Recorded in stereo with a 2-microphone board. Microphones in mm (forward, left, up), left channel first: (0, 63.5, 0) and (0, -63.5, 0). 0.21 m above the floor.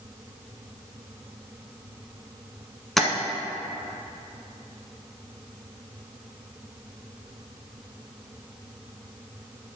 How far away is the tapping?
About 0.9 m.